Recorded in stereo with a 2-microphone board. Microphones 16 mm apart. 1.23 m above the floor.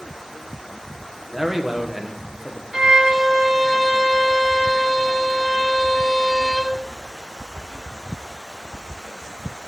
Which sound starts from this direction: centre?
A man speaking, at 1.3 s.